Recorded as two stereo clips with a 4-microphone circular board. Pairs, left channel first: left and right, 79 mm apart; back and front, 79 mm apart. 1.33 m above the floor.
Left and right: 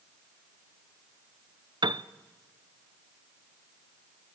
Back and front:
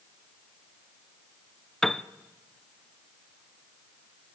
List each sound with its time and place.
1.8 s a piano: 95° right, 0.6 m